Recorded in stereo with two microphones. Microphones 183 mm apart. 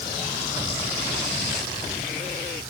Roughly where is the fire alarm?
No fire alarm in this recording.